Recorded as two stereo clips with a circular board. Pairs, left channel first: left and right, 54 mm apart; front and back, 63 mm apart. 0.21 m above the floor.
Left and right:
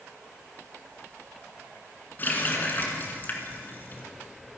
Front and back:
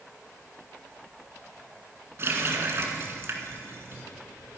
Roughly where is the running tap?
Behind left.